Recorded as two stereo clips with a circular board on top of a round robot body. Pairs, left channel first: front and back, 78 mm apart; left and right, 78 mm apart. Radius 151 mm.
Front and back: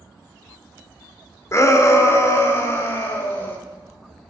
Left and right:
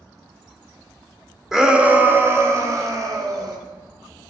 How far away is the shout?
About 1.2 m.